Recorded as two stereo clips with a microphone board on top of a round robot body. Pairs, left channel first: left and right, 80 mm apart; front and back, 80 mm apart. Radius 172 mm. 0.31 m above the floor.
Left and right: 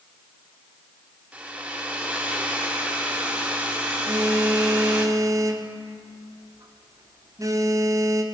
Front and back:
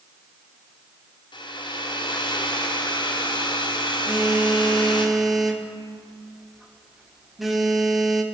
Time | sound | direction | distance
1.3 | a hair dryer | 15° right | 1.8 m
4.1 | a phone buzzing | 95° right | 1.5 m